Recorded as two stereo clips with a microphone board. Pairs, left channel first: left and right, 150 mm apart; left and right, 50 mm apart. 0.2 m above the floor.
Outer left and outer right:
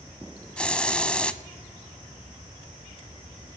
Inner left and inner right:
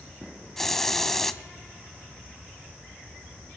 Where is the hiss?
5° left (ahead or behind), 0.6 m.